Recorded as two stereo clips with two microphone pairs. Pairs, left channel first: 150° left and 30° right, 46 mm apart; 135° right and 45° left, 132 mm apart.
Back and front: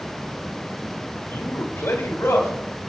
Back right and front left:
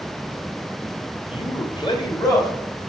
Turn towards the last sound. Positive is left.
turn(degrees=160)